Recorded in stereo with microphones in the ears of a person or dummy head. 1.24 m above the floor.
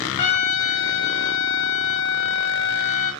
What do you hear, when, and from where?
0.2 s a trumpet: 40° left (ahead or behind), 1.2 m